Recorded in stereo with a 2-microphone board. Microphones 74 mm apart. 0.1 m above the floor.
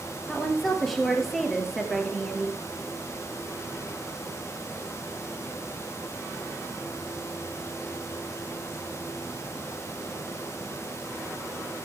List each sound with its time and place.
0.3 s a woman speaking: 5° left (ahead or behind), 2 m